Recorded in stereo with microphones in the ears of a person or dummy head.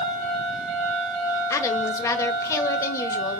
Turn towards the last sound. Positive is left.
turn(degrees=20)  # may be behind; listen again after turning